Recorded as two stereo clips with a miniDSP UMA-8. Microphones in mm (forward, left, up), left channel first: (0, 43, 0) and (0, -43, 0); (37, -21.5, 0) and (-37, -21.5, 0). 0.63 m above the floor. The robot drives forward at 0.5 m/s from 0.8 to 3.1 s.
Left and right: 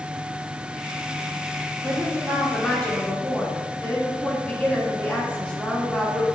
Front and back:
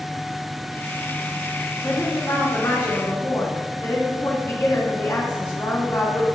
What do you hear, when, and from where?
1.8 s a woman speaking: 15° left, 2 m; by 6.2 s 25° left, 1.6 m